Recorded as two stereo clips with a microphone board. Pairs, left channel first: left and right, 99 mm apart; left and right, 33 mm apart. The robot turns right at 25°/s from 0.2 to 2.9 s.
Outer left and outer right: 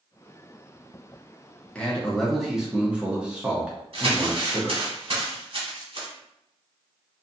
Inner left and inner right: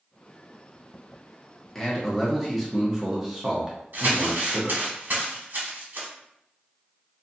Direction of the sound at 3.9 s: 60° right (ahead or behind).